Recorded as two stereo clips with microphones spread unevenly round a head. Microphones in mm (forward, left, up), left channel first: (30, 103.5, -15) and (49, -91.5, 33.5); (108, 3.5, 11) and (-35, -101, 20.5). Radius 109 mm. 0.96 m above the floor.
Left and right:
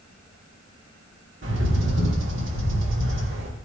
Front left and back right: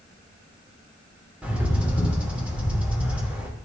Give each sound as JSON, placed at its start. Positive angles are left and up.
{"t": 1.4, "sound": "a bird", "azimuth_deg": -60, "distance_m": 3.0}